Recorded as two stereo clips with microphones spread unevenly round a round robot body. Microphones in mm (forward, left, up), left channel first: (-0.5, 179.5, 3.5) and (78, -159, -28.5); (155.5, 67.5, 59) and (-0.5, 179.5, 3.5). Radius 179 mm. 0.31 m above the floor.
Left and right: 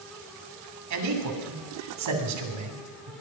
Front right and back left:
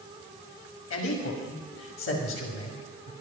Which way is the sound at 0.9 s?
55° right.